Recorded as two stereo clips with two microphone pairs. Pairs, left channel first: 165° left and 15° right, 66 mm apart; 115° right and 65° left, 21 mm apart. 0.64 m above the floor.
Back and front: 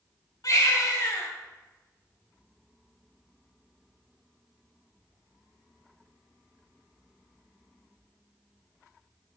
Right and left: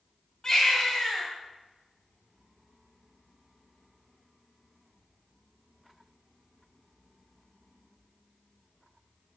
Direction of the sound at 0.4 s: 170° right.